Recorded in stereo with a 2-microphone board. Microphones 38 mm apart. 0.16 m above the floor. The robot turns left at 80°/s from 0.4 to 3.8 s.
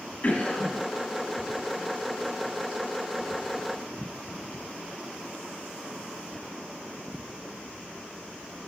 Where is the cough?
35° left (ahead or behind), 1.7 m; by 0.8 s 15° left (ahead or behind), 1.7 m.